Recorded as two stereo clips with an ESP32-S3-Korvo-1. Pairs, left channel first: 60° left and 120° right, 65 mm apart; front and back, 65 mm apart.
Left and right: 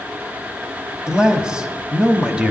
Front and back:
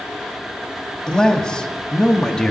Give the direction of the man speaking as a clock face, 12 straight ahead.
2 o'clock.